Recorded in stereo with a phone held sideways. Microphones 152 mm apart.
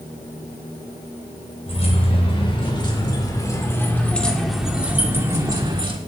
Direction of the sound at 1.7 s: 40° left (ahead or behind).